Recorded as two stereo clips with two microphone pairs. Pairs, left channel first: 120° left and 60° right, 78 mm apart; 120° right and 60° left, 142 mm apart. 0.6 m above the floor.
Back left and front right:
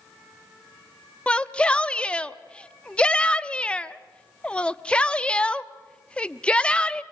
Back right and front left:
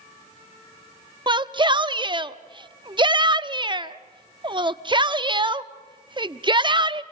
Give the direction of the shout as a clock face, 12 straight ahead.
10 o'clock.